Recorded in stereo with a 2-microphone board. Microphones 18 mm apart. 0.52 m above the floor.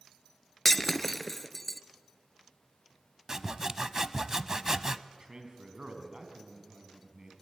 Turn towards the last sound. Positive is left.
turn(degrees=-45)  # may be behind; listen again after turning